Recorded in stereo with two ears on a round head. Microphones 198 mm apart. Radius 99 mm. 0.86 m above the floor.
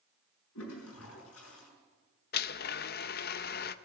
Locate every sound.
0.6 s a toilet flushing: 90° left, 5 m
2.3 s a blender: 45° left (ahead or behind), 0.5 m